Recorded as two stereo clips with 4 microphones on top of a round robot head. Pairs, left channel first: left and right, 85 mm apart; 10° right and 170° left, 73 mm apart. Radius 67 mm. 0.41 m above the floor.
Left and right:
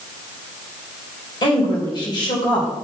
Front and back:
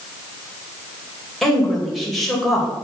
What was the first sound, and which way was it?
A woman speaking, 80° left.